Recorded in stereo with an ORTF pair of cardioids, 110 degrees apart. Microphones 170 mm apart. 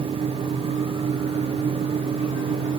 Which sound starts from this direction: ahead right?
A fan, at 0.0 s.